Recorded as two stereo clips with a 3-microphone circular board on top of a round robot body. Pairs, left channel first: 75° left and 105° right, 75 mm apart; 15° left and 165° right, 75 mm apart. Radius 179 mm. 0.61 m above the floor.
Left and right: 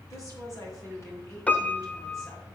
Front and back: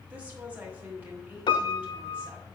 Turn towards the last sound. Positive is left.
turn(degrees=5)